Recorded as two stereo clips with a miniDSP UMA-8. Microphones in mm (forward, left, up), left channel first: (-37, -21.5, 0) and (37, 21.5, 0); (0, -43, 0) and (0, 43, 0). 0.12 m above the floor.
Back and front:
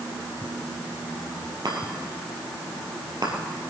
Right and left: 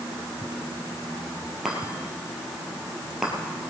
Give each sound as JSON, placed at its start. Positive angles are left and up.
{"t": 1.6, "sound": "a chime", "azimuth_deg": 5, "distance_m": 2.5}